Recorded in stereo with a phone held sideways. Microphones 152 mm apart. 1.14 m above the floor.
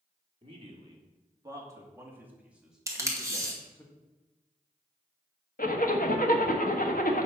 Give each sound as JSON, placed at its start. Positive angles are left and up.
{"t": 0.4, "sound": "a man speaking", "side_deg": -35, "distance_m": 2.5}
{"t": 2.9, "sound": "tape being pulled", "side_deg": -20, "distance_m": 2.0}
{"t": 5.6, "sound": "a zipper", "side_deg": 65, "distance_m": 1.3}